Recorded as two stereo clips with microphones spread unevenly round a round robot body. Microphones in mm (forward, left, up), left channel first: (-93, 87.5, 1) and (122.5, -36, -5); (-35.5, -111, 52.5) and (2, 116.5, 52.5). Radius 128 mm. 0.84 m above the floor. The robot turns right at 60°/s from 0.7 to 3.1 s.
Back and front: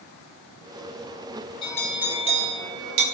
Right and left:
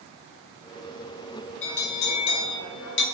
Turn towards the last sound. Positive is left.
turn(degrees=-50)